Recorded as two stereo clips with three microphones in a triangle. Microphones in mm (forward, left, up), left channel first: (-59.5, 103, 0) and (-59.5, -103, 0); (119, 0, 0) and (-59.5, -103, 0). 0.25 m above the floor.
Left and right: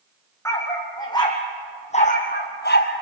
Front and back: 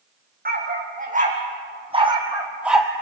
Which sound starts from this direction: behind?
A dog barking, at 0.5 s.